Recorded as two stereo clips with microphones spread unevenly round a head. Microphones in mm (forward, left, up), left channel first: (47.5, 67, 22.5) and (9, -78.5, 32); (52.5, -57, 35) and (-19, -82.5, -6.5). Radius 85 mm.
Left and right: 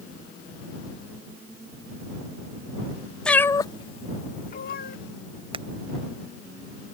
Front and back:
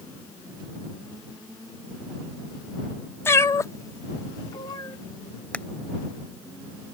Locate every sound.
3.2 s a cat meowing: 10° right; by 5.0 s 55° left
5.5 s hammering: 50° right